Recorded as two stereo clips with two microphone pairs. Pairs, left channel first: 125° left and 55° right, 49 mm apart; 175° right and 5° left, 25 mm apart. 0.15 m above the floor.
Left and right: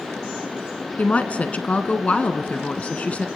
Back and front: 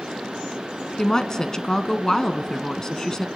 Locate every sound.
1.0 s a woman speaking: 150° left, 1.2 m